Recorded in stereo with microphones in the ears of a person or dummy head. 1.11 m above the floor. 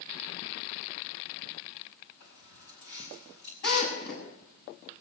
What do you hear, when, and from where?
2.2 s keys jangling: 50° left (ahead or behind), 6 m
3.6 s a drill: 50° left (ahead or behind), 7.5 m